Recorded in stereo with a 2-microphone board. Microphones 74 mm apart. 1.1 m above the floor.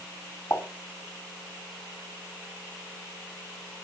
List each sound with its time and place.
0.5 s a pop: 40° left (ahead or behind), 2.5 m